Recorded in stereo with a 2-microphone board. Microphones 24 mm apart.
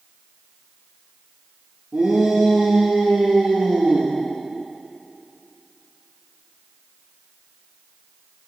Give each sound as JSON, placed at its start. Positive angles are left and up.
{"t": 1.9, "sound": "a shout", "side_deg": -80, "distance_m": 8.0}